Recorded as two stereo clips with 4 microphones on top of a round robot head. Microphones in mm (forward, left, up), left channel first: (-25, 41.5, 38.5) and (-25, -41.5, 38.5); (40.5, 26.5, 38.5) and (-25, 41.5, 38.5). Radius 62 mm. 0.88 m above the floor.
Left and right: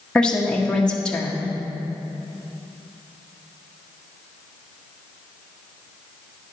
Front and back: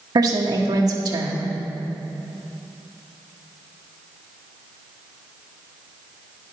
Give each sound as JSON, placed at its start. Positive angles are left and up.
{"t": 0.1, "sound": "a woman speaking", "azimuth_deg": 170, "distance_m": 1.1}